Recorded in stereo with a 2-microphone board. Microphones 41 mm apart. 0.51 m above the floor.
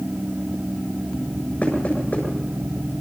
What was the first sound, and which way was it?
Knocking, 40° left (ahead or behind).